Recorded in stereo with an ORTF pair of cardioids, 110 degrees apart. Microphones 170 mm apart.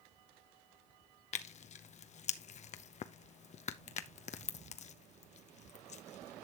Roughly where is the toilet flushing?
I don't hear a toilet flushing.